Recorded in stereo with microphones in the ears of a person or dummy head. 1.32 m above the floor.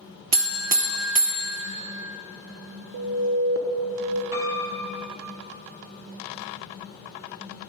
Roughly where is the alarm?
Right.